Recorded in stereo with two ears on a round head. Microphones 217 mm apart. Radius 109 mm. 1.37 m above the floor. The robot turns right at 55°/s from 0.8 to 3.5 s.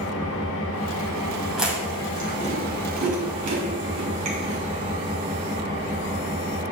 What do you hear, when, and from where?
0.0 s an engine running: 60° left, 1.4 m; by 6.7 s 150° right, 1.4 m
1.6 s chewing: 5° right (ahead or behind), 2.5 m; by 4.6 s 70° right (ahead or behind), 2.5 m